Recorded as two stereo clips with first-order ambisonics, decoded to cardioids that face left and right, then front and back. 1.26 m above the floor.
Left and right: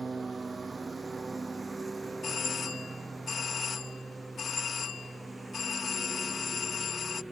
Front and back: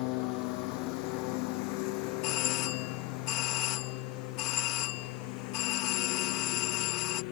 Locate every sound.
0.0 s a lawn mower: 15° right; by 7.3 s 5° right
2.2 s a doorbell: 20° left